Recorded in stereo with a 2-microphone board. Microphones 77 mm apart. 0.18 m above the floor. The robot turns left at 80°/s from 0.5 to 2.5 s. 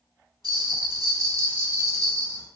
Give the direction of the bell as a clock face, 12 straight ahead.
2 o'clock.